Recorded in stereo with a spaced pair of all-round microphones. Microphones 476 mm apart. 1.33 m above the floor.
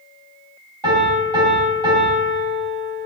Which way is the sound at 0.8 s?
85° right.